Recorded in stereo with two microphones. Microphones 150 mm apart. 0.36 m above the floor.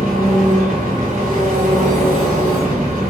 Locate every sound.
0.0 s an engine running: 75° right (ahead or behind), 1.1 m